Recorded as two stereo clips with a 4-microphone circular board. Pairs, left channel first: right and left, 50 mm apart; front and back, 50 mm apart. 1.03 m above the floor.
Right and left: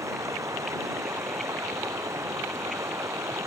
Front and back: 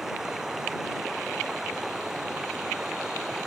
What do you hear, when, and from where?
0.0 s running water: 100° left